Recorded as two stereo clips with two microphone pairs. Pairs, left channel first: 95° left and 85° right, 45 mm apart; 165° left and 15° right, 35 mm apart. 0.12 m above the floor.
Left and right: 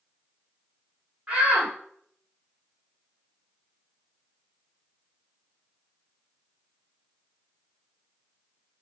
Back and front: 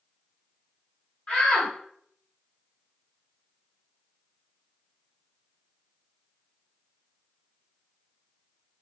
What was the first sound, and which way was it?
A shout, 145° right.